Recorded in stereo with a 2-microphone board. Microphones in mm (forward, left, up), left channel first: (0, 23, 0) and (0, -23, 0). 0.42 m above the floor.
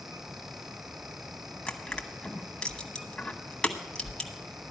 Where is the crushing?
15° left (ahead or behind), 1.1 m.